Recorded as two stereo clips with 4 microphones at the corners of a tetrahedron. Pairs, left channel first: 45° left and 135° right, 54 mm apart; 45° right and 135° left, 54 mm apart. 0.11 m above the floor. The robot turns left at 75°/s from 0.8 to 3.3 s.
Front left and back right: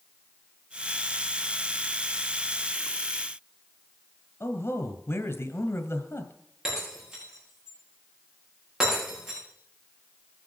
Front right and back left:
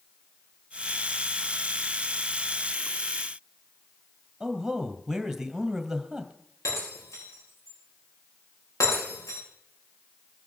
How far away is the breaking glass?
About 9 m.